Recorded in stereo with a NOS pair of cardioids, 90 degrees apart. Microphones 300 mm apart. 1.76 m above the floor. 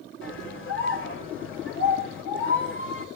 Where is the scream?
40° left, 9 m.